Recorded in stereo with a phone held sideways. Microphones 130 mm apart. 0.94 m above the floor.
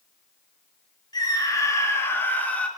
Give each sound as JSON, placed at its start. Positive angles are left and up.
{"t": 1.1, "sound": "a scream", "side_deg": 30, "distance_m": 2.5}